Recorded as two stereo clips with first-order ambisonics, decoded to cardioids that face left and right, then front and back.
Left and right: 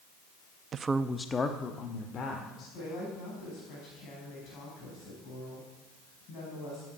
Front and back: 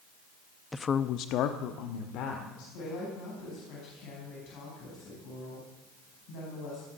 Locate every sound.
0.7 s a woman speaking: 75° right, 0.5 m; by 2.6 s 35° left, 2 m
2.7 s a woman speaking: 40° left, 5 m